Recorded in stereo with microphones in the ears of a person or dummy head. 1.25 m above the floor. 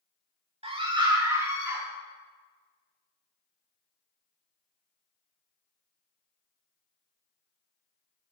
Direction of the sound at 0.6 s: 35° right (ahead or behind).